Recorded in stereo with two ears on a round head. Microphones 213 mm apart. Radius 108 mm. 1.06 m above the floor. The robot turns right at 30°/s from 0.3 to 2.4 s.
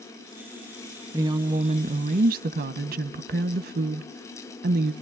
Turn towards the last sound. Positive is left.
turn(degrees=-125)